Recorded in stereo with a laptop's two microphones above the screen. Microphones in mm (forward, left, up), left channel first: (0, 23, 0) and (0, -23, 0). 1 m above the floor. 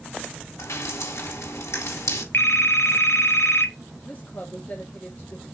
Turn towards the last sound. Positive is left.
turn(degrees=40)  # may be behind; listen again after turning